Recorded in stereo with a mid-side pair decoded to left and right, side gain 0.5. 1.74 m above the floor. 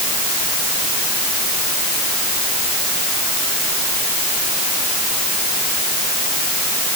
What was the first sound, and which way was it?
Only background noise.